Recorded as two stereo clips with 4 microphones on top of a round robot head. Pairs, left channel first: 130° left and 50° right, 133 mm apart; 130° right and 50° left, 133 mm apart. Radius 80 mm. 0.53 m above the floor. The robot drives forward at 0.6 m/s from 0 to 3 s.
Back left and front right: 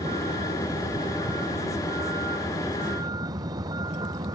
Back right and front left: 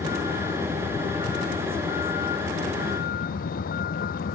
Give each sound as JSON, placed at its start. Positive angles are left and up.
{"t": 0.0, "sound": "a vehicle", "azimuth_deg": -100}